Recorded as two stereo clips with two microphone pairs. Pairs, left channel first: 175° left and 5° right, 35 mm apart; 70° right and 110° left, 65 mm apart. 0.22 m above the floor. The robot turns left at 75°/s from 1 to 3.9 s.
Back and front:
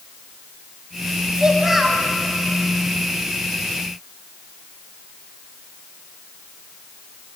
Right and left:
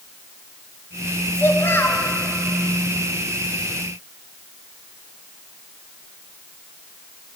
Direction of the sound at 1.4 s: 55° right.